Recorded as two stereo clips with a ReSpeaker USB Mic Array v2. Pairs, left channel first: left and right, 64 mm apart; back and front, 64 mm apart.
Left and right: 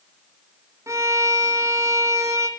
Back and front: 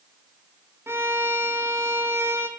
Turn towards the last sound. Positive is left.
turn(degrees=-50)